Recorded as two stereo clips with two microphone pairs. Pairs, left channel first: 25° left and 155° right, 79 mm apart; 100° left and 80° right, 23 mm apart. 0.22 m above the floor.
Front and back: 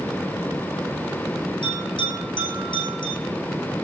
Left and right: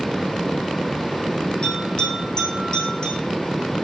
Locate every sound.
1.6 s a bell: 40° left, 5 m